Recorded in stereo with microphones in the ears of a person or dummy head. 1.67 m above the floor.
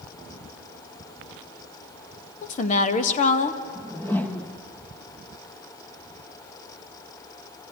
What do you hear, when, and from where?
2.4 s a woman speaking: 45° left (ahead or behind), 1.6 m
3.8 s a whoosh: 10° left (ahead or behind), 1.3 m